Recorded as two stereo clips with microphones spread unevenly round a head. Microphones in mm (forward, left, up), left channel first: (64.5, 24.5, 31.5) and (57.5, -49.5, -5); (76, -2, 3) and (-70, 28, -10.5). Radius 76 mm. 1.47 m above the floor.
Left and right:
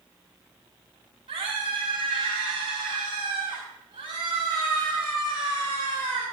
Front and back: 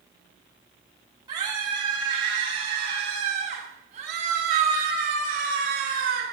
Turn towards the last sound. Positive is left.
turn(degrees=-160)